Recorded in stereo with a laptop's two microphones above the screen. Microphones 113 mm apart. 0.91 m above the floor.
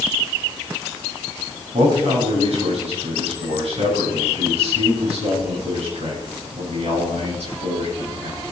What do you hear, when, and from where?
1.7 s a man speaking: 70° right (ahead or behind), 9 m